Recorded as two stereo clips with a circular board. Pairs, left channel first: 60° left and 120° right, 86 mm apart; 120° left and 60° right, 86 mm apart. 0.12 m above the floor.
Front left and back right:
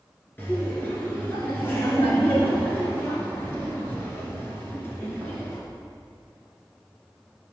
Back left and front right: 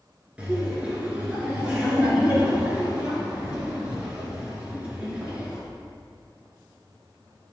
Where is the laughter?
10° left, 2 m.